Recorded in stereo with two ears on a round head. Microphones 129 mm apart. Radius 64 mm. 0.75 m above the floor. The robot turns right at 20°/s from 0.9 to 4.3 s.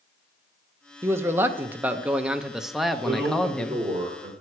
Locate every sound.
1.0 s a man speaking: 20° right (ahead or behind), 0.6 m; by 3.8 s 10° left (ahead or behind), 0.6 m
3.0 s a man speaking: 20° right (ahead or behind), 2 m; by 4.3 s 45° right (ahead or behind), 2 m